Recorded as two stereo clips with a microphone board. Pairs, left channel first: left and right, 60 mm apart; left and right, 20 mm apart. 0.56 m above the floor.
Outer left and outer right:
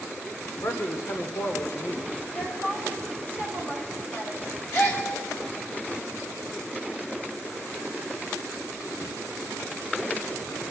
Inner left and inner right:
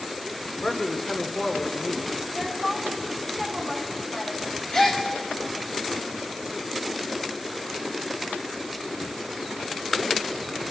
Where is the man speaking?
55° left (ahead or behind), 1.5 m.